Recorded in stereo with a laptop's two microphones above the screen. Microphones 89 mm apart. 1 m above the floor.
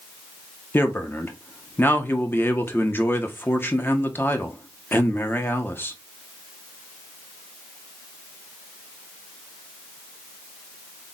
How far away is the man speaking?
About 0.7 m.